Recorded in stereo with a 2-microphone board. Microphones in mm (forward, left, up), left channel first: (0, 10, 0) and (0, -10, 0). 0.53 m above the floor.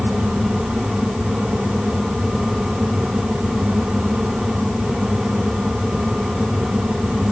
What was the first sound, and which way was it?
Only background noise.